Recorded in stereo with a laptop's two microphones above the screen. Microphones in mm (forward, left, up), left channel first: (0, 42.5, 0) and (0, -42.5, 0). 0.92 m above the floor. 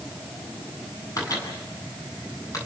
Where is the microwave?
40° left (ahead or behind), 8.5 m.